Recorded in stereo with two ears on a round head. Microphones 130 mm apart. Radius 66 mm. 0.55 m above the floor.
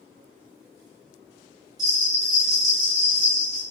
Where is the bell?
25° right (ahead or behind), 1.4 m.